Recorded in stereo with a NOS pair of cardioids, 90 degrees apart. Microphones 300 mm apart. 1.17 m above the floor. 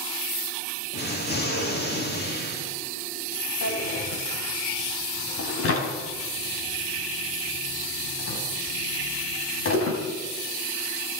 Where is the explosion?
35° left, 3.5 m.